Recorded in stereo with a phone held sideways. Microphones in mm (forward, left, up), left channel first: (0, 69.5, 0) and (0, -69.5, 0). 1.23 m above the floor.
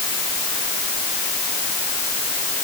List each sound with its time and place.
Only background noise.